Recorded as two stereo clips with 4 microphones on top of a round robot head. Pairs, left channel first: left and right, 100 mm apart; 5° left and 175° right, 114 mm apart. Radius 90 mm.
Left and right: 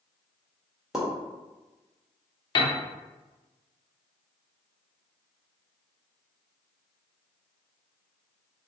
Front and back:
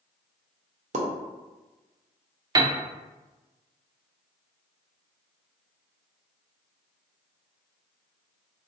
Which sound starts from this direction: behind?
A pop, at 0.9 s.